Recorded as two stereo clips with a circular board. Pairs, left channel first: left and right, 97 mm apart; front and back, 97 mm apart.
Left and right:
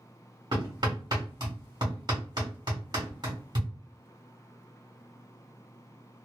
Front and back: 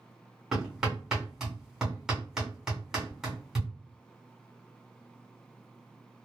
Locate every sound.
0.5 s hammering: 95° right, 1.4 m